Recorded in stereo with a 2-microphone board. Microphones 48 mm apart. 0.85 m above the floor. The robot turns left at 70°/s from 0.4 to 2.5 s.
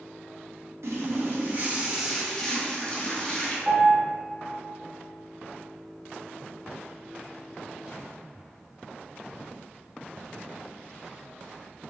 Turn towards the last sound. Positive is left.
turn(degrees=-5)  # may be behind; listen again after turning